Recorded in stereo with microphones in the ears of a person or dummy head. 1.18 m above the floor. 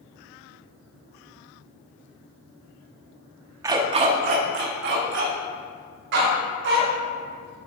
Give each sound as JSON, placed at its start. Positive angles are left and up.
{"t": 3.6, "sound": "a dog barking", "side_deg": -25, "distance_m": 0.7}